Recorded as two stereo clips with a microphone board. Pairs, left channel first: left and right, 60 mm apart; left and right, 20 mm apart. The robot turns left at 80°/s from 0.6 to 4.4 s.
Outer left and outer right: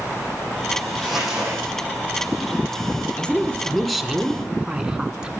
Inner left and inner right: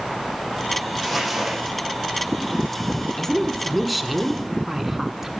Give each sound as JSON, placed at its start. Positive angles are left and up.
{"t": 1.0, "sound": "crumpling", "azimuth_deg": 15, "distance_m": 7.0}
{"t": 3.2, "sound": "a woman speaking", "side_deg": 20, "distance_m": 1.2}